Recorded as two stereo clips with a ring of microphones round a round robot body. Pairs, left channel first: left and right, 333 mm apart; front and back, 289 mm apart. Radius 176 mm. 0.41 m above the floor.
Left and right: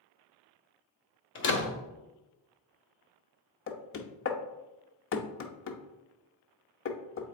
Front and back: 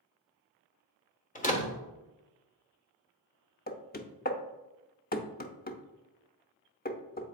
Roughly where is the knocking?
Ahead left.